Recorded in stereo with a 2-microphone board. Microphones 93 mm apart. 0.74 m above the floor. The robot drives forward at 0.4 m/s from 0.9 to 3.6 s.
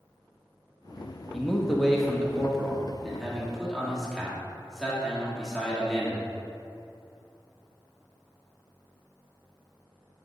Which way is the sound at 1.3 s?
Centre (ahead or behind).